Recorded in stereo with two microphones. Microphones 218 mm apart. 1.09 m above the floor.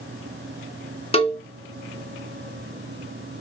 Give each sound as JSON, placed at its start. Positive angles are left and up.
{"t": 1.1, "sound": "a cowbell", "side_deg": 25, "distance_m": 0.6}